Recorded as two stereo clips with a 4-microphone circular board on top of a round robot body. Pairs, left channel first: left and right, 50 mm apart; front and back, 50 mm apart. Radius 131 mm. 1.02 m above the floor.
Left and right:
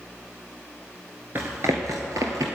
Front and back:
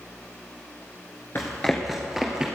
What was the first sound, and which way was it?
Running footsteps, 60° right.